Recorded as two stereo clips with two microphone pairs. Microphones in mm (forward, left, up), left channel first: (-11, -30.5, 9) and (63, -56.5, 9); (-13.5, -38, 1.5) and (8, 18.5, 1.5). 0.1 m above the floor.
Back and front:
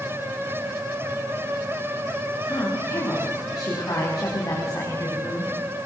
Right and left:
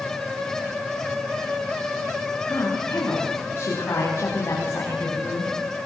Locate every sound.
2.5 s a woman speaking: 145° right, 9.5 m